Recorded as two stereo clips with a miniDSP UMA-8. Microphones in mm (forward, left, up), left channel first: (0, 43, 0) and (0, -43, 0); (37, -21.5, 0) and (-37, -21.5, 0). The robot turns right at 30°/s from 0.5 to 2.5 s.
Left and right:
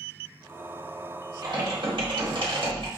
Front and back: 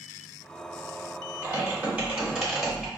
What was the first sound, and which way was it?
Typing on a keyboard, 125° right.